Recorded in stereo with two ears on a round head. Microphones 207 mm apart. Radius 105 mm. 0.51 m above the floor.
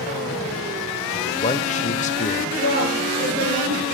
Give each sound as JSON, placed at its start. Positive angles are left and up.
{"t": 1.1, "sound": "a man speaking", "side_deg": 35, "distance_m": 1.5}
{"t": 2.5, "sound": "a woman speaking", "side_deg": -40, "distance_m": 8.5}